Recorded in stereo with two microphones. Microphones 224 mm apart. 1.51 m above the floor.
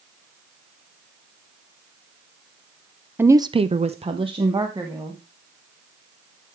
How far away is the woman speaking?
About 0.7 m.